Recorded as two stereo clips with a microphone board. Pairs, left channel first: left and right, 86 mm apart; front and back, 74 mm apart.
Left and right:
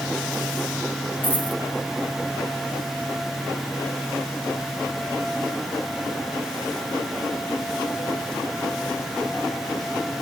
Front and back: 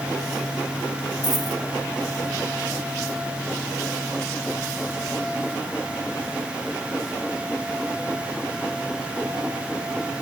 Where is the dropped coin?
160° left, 1.6 m.